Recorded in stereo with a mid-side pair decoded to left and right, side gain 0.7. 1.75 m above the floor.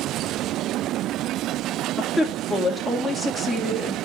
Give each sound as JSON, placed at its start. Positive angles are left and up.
{"t": 2.0, "sound": "a woman speaking", "azimuth_deg": 5, "distance_m": 2.0}